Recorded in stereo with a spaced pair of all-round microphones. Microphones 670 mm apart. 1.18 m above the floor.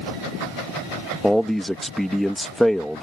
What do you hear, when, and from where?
1.2 s a man speaking: centre (ahead or behind)